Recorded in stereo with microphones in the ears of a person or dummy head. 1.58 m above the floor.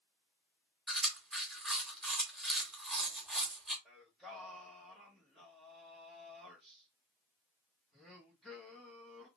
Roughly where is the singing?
Centre.